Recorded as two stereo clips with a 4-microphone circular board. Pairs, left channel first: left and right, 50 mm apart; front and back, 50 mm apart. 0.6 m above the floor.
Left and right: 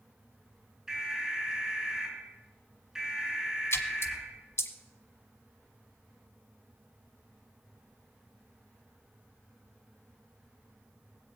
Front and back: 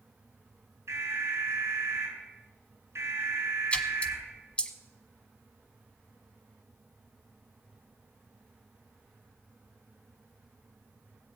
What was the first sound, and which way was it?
An alarm, 170° right.